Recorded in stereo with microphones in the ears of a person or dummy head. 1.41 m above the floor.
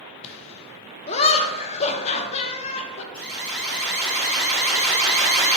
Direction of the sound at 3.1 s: 5° left (ahead or behind).